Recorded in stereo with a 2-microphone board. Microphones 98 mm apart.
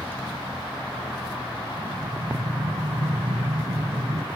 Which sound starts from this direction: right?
Breathing, at 1.8 s.